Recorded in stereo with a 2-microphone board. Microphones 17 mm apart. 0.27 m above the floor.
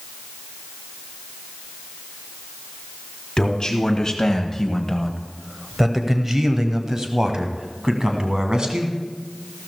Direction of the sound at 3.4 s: 40° left (ahead or behind).